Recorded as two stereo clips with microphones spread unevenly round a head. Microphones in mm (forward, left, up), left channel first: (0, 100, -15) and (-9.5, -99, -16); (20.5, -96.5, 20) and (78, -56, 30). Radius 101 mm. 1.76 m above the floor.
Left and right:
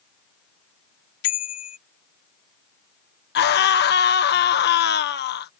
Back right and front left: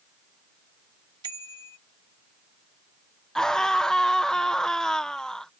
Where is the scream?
130° left.